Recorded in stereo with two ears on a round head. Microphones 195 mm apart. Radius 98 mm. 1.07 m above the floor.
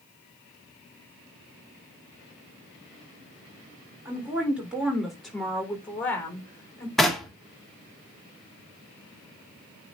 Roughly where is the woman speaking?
Centre.